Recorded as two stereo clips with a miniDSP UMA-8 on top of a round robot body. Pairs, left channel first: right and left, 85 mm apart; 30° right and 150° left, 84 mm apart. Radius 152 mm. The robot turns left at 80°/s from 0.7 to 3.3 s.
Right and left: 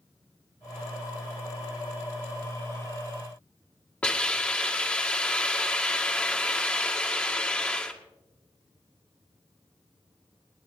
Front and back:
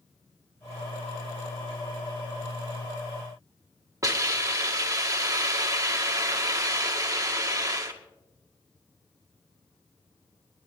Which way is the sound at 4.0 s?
165° right.